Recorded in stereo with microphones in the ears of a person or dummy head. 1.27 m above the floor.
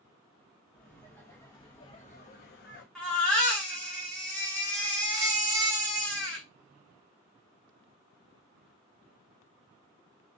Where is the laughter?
5° left (ahead or behind), 1.4 m; by 2.9 s 60° left (ahead or behind), 0.7 m.